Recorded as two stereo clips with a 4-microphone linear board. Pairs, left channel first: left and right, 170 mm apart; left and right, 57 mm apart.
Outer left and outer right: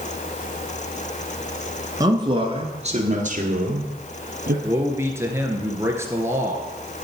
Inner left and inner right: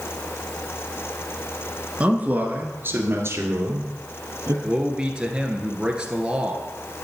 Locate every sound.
2.0 s a man speaking: 20° right (ahead or behind), 1.6 m; by 4.5 s 60° right (ahead or behind), 3 m
4.6 s a man speaking: 15° right (ahead or behind), 1.6 m